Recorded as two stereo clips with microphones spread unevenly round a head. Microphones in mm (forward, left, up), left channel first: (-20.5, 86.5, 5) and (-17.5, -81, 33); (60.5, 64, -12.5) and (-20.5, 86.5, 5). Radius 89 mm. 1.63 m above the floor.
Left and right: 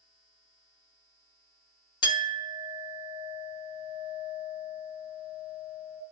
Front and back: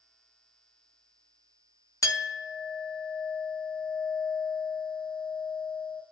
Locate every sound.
2.0 s a clink: 30° left, 0.9 m